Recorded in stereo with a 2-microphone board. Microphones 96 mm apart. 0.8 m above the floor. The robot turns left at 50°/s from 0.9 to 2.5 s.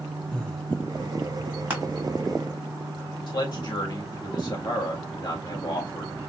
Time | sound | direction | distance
0.3 | breathing | 5° left (ahead or behind) | 0.9 m
1.7 | crushing | 15° right (ahead or behind) | 1.4 m
3.3 | a man speaking | 55° left (ahead or behind) | 1.5 m